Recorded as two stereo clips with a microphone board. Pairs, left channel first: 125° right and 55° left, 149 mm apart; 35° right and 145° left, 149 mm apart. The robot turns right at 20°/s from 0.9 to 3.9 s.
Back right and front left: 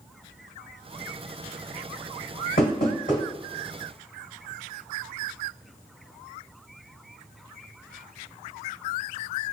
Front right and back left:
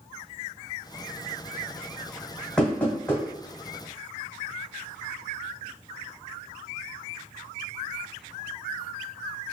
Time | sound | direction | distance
2.6 | knocking | 120° right | 2.0 m